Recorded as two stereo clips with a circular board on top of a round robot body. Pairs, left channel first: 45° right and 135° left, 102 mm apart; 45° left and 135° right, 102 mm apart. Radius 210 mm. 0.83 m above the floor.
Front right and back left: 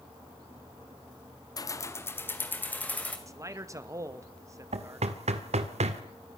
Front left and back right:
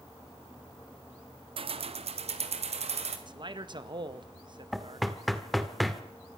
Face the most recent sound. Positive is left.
turn(degrees=135)